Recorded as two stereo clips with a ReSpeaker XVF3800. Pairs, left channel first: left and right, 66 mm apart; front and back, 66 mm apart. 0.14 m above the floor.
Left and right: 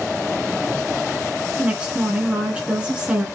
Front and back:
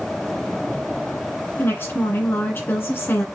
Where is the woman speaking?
25° right, 1.8 m.